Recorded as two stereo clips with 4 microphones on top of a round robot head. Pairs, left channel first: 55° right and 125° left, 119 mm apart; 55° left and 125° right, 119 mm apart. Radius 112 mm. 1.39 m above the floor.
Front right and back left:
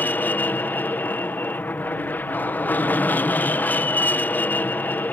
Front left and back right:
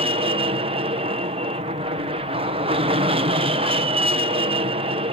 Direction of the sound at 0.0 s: 125° right.